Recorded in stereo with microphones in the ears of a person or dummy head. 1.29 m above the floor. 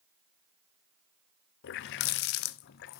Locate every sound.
1.6 s a running tap: 60° left (ahead or behind), 0.6 m